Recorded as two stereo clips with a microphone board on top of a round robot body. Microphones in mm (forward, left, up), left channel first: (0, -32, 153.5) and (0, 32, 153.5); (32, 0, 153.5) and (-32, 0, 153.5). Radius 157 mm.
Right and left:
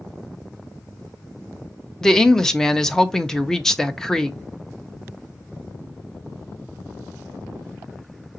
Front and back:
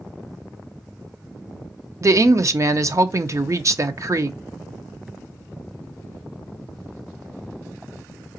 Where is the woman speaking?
170° right, 0.7 m.